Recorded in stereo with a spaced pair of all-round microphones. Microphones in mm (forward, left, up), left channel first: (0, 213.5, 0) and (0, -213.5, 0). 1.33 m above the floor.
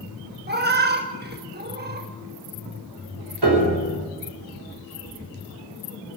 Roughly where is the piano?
Right.